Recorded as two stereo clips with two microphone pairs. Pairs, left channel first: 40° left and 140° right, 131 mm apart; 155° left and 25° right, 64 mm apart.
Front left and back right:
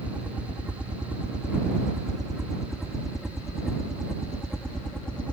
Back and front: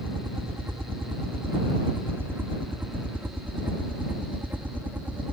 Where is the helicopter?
65° right; by 5.3 s 35° right.